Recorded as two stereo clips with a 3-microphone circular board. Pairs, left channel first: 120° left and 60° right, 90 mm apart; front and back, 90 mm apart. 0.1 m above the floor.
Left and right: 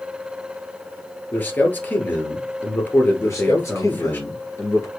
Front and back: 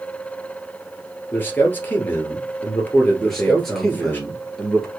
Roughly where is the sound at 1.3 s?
Ahead left.